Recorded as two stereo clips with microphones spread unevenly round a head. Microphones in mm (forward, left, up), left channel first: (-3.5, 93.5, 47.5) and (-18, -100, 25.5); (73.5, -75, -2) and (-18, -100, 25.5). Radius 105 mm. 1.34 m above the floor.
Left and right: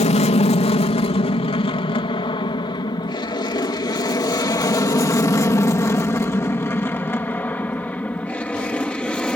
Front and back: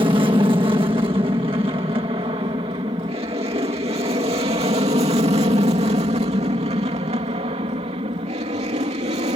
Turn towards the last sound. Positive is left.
turn(degrees=175)